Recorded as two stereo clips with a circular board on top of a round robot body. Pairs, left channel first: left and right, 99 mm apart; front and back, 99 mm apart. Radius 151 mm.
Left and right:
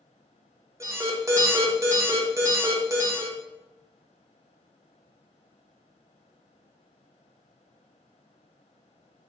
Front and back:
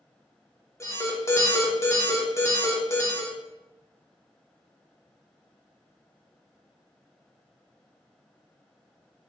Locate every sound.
0.8 s an alarm: 45° right, 1.2 m